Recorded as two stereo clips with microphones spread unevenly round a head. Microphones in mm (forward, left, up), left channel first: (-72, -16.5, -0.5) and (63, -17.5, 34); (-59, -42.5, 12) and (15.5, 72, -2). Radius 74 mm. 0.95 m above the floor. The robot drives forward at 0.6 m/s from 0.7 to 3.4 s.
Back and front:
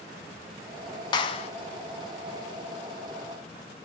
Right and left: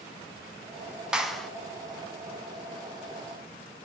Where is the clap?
135° left, 0.7 m; by 1.5 s 150° left, 0.8 m.